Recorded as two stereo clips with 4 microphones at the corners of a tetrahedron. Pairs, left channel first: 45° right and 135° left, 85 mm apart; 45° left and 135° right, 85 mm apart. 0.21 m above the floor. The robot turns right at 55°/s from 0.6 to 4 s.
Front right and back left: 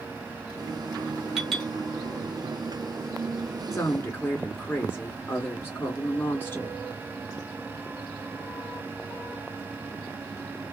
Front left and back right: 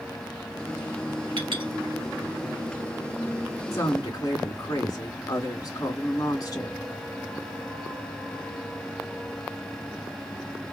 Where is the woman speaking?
5° right, 2 m; by 6.8 s 15° left, 2 m.